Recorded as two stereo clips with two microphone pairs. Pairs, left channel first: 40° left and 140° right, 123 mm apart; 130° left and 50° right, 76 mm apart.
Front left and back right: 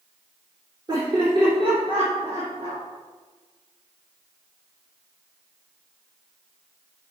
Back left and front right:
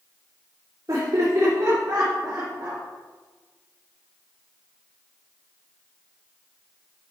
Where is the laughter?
85° right, 2.5 m; by 2.8 s 110° right, 3 m.